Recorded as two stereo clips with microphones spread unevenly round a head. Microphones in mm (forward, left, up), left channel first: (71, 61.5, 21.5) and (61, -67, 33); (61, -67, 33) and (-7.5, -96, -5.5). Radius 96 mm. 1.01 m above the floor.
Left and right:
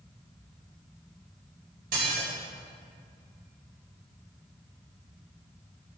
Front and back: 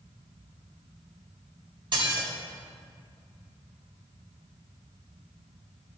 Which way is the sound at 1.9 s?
145° right.